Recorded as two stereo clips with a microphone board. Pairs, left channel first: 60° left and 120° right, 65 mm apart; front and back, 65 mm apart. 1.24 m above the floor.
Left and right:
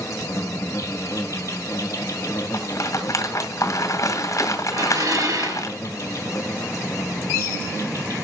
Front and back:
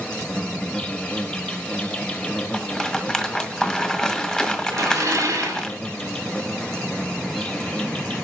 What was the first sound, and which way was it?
An insect, 70° left.